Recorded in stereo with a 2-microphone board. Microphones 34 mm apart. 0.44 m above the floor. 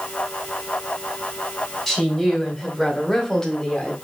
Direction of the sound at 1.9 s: Centre (ahead or behind).